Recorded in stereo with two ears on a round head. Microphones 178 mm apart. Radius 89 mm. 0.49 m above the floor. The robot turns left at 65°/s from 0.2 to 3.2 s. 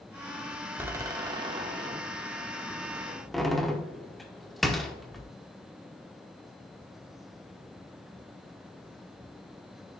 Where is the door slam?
10° right (ahead or behind), 0.8 m; by 5.2 s centre (ahead or behind), 0.8 m.